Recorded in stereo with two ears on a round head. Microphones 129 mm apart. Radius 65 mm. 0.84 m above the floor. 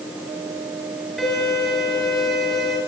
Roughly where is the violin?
Centre.